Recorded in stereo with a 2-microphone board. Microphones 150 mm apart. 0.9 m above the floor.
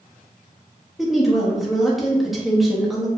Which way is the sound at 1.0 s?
Centre (ahead or behind).